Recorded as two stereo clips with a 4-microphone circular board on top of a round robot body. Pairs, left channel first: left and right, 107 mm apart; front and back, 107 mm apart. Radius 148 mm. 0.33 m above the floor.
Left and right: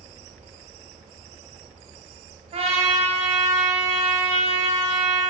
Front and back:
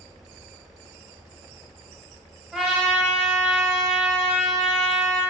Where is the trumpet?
95° right, 0.8 m.